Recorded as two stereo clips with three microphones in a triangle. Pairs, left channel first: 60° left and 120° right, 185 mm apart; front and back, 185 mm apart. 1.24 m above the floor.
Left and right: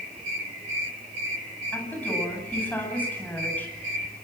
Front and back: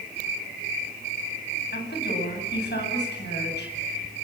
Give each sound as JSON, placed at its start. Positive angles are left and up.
{"t": 1.7, "sound": "a woman speaking", "azimuth_deg": -20, "distance_m": 9.5}